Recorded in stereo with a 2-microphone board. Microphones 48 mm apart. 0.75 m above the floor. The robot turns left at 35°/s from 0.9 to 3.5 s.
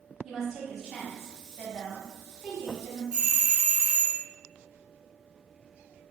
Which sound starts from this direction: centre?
A doorbell, at 3.1 s.